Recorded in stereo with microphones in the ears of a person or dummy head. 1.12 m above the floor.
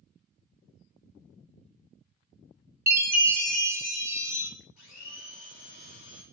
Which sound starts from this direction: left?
A blender, at 4.8 s.